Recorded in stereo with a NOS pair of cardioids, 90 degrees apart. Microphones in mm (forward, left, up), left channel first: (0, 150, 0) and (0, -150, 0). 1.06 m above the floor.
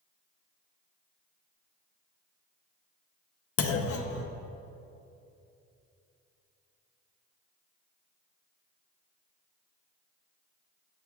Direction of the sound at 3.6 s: 55° left.